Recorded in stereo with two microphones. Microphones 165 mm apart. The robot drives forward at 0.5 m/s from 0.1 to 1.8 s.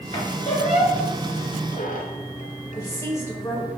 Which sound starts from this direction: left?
A squeak, at 0.1 s.